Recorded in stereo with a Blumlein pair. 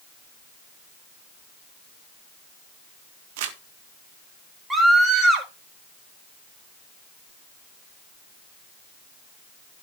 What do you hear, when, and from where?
3.4 s crumpling: 50° right, 1.8 m
4.7 s a scream: 5° right, 4.5 m